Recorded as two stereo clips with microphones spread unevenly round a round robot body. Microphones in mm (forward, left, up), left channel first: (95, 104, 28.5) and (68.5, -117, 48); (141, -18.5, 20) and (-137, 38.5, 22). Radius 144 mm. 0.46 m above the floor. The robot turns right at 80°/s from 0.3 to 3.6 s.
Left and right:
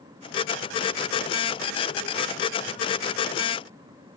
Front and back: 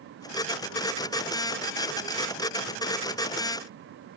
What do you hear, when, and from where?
Only background noise.